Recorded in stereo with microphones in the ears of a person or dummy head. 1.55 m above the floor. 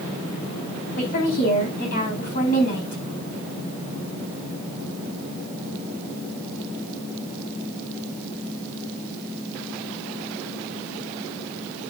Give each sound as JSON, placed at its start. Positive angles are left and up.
{"t": 1.0, "sound": "a woman speaking", "side_deg": 50, "distance_m": 4.5}